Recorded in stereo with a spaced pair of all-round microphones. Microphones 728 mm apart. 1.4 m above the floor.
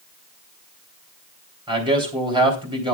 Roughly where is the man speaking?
Centre.